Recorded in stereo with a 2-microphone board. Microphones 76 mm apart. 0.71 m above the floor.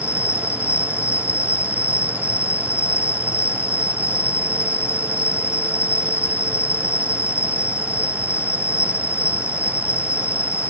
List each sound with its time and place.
0.0 s an insect: 40° left (ahead or behind)